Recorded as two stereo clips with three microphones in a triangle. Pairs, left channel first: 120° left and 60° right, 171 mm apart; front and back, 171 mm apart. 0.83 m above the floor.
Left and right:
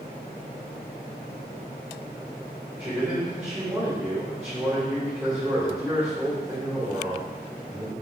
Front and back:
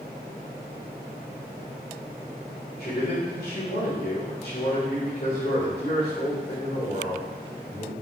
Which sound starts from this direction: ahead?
A man speaking, at 2.8 s.